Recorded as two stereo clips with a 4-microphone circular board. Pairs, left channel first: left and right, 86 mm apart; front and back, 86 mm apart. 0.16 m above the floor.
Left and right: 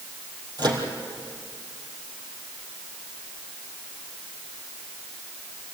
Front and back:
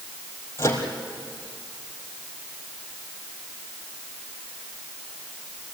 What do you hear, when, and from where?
0.6 s a microwave: 55° right, 3.5 m